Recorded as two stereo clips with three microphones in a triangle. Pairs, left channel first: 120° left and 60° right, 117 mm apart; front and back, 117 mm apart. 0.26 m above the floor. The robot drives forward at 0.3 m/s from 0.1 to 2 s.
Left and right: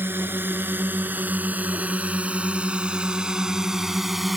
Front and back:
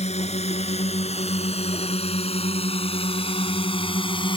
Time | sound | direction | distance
0.0 | a drone | 10° left | ?